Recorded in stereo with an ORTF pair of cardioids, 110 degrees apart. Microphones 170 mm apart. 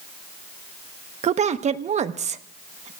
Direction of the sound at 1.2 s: 40° right.